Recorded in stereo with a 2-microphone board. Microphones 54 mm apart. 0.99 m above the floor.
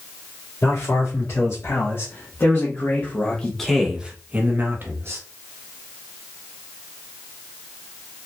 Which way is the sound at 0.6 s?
70° left (ahead or behind).